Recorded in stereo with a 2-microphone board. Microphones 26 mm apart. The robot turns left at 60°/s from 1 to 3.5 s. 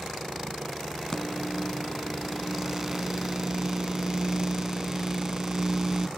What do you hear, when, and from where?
1.1 s a microwave: 20° left (ahead or behind), 0.8 m; by 6.1 s 25° right (ahead or behind), 0.8 m